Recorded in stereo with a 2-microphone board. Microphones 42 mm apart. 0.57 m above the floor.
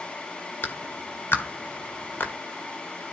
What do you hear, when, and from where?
0.6 s a clap: 65° left (ahead or behind), 1.5 m